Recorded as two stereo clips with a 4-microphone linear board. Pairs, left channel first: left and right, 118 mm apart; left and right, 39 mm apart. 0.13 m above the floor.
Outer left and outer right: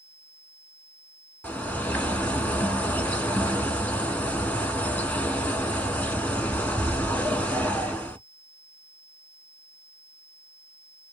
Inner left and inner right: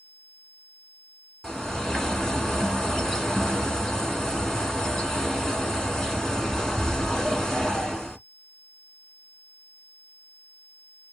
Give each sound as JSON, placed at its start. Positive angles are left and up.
{"t": 1.4, "sound": "a bird", "side_deg": 10, "distance_m": 0.8}